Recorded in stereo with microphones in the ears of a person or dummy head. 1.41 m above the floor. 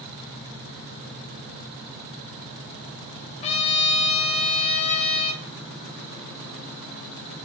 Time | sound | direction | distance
3.4 | a trumpet | 35° left (ahead or behind) | 0.6 m